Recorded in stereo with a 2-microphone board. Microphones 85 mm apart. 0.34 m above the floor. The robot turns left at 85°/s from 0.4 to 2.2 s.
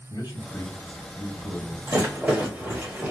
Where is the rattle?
35° right (ahead or behind), 1.4 m; by 3.1 s 20° right (ahead or behind), 1.4 m.